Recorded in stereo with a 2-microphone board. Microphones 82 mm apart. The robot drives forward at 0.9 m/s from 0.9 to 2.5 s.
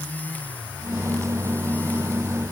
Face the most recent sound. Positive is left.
No sound to turn to.